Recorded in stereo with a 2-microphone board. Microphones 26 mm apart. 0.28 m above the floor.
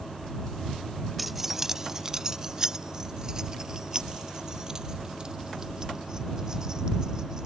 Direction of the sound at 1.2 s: 5° right (ahead or behind).